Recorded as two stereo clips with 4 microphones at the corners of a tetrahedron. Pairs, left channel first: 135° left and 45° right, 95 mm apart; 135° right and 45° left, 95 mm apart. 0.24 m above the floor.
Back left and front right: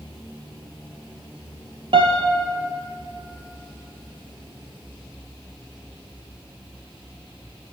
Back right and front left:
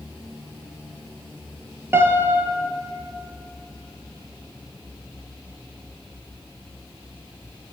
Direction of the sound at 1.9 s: 20° right.